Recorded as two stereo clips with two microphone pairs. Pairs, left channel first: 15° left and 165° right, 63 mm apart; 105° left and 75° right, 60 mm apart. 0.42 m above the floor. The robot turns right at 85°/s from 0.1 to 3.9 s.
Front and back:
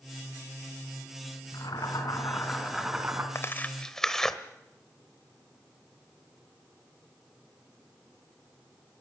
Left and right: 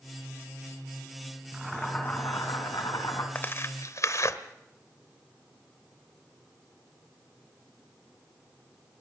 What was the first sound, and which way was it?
Boiling, straight ahead.